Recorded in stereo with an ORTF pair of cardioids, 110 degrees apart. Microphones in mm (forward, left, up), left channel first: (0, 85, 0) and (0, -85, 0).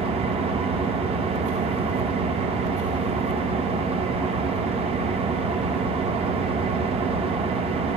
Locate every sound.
0.0 s an engine running: 40° right, 0.7 m